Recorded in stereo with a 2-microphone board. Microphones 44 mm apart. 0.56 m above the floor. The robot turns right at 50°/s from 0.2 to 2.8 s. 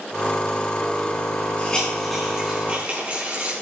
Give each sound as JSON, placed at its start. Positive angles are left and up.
{"t": 1.6, "sound": "a hiss", "side_deg": 25, "distance_m": 4.5}